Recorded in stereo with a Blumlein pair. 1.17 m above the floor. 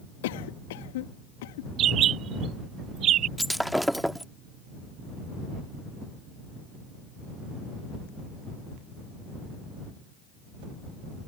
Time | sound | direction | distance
0.2 | a cough | 55° left | ?
1.8 | a bird | 30° right | ?
3.4 | breaking glass | straight ahead | ?